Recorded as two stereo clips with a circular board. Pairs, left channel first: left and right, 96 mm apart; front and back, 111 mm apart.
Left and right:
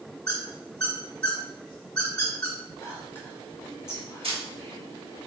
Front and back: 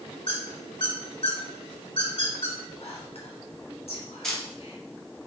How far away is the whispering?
About 1.5 m.